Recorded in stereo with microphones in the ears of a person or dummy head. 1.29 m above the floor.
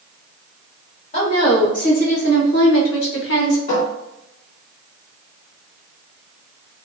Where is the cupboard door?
45° left (ahead or behind), 1.8 m.